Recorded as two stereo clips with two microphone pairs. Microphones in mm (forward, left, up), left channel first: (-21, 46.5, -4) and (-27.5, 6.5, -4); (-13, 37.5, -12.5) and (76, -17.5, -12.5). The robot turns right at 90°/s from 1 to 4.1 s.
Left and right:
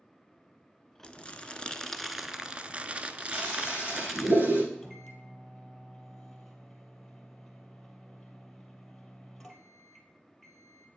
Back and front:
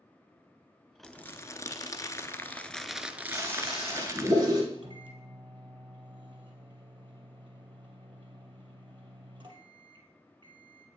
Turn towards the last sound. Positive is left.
turn(degrees=0)